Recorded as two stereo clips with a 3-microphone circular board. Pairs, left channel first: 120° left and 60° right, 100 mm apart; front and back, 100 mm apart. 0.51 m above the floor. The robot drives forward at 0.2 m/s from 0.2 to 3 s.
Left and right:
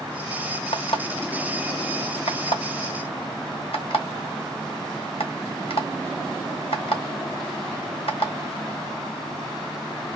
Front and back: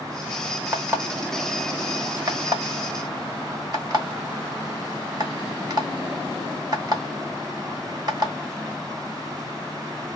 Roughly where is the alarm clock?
Behind left.